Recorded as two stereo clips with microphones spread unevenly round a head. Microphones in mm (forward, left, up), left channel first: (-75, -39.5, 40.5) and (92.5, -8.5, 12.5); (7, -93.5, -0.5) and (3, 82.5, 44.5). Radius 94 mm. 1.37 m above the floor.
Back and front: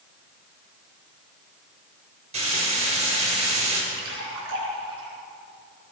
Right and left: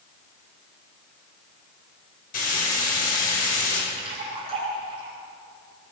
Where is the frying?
45° right, 6.5 m.